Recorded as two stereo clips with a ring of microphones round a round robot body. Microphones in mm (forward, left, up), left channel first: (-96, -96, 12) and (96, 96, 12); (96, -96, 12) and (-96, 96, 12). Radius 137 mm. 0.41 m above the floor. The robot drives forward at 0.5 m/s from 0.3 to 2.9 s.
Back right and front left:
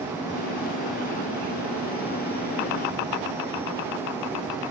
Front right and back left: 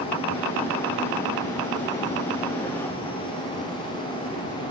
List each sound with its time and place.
Only background noise.